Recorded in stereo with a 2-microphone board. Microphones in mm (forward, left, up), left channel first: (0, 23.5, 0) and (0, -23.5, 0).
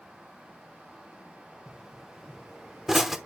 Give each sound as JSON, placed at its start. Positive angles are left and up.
{"t": 1.7, "sound": "a pop", "side_deg": -5, "distance_m": 0.8}